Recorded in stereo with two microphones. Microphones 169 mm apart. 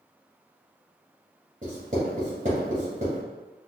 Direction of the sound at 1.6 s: 45° right (ahead or behind).